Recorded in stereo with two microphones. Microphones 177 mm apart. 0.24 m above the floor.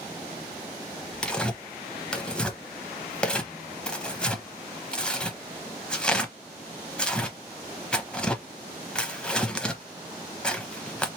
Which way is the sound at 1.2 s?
5° left (ahead or behind).